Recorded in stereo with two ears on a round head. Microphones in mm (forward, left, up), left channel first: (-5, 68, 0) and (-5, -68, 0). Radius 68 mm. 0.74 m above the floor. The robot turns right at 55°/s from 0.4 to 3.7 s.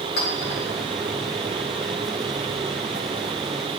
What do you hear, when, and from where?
0.2 s a clink: 80° left, 1.6 m; by 0.6 s 70° left (ahead or behind), 1.6 m